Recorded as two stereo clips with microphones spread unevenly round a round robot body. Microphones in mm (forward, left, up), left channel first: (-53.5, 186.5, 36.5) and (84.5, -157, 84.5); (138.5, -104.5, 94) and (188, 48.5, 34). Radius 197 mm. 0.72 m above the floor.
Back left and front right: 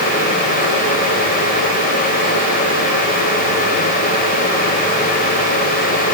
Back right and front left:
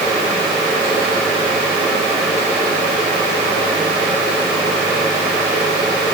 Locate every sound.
Only background noise.